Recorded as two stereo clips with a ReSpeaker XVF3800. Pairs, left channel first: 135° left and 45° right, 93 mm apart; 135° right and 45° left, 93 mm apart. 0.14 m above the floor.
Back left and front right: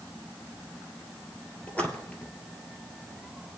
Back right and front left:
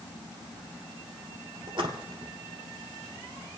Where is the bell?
No bell in this recording.